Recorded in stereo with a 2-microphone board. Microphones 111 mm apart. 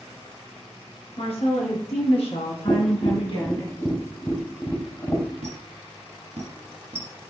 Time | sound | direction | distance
1.2 | a woman speaking | 60° left (ahead or behind) | 3.5 m
2.7 | tapping | 25° left (ahead or behind) | 1.1 m
5.4 | a squeak | 75° right (ahead or behind) | 3 m